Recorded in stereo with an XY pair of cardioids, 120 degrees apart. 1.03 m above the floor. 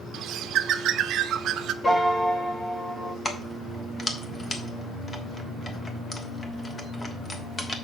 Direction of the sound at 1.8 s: 25° left.